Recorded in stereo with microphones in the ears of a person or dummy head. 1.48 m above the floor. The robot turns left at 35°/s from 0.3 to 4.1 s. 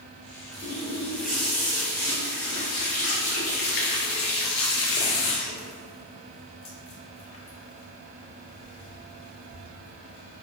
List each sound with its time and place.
0.5 s a running tap: 155° right, 0.5 m; by 9.6 s 80° left, 0.5 m